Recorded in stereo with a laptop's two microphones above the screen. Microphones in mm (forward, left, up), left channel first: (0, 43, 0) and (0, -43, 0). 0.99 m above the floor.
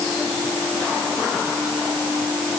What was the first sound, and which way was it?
Only background noise.